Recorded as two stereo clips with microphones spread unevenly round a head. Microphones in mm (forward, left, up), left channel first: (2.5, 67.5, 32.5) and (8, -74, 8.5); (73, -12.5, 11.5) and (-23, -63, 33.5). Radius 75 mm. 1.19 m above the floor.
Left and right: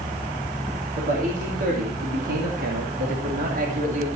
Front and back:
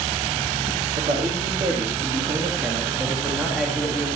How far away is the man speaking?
About 2.5 m.